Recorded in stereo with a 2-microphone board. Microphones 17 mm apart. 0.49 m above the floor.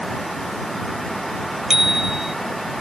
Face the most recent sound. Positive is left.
turn(degrees=-25)  # may be behind; listen again after turning